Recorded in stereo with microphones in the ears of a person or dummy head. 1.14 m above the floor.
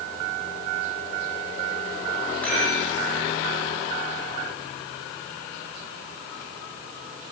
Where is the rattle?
10° left (ahead or behind), 3.5 m.